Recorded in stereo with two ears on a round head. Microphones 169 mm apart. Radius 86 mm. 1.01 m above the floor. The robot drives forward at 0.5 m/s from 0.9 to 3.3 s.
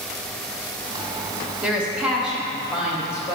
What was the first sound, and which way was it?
A woman speaking, 5° right (ahead or behind).